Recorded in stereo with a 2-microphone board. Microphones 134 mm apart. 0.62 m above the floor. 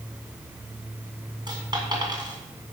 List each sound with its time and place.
1.5 s a dropped coin: 35° right (ahead or behind), 2.5 m